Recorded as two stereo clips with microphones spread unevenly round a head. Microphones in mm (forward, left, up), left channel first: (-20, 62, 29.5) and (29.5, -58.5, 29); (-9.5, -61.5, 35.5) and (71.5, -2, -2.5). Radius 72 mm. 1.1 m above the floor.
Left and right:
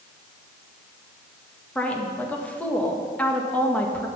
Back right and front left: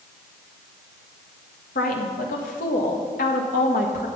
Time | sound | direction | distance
1.8 | a woman speaking | 165° right | 1.7 m